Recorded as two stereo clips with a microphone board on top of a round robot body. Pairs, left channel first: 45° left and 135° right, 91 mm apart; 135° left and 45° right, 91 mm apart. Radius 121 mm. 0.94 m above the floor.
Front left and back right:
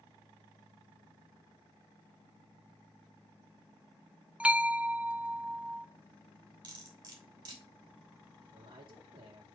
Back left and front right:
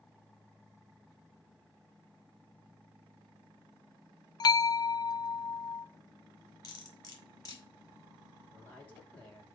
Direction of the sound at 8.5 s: 155° right.